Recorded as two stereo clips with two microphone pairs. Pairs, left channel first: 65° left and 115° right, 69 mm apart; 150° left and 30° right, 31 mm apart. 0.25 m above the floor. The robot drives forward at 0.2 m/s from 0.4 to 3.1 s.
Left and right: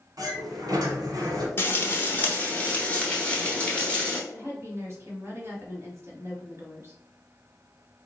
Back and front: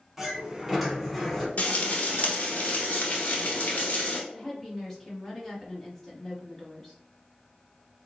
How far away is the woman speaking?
About 1.2 m.